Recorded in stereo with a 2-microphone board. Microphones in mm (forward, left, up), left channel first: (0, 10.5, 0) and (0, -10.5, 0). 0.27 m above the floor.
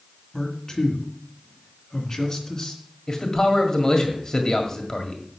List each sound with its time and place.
0.3 s a man speaking: 25° left (ahead or behind), 2.5 m
3.1 s a man speaking: 25° left (ahead or behind), 1.7 m